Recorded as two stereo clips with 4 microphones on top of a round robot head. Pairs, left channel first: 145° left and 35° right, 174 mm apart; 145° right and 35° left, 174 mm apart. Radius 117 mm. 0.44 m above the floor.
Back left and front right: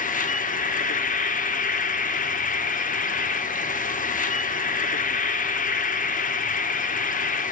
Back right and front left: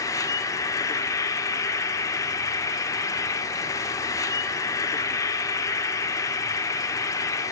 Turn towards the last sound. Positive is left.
turn(degrees=150)